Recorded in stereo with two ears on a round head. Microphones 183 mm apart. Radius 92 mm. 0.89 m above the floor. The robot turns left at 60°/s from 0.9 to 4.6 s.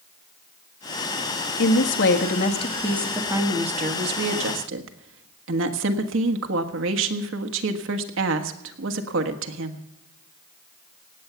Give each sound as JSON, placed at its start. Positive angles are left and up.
{"t": 1.6, "sound": "a woman speaking", "azimuth_deg": 90, "distance_m": 1.5}